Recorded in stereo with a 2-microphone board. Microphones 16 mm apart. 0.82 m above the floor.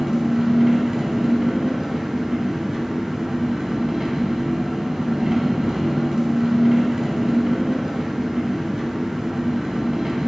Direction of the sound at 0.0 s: 45° right (ahead or behind).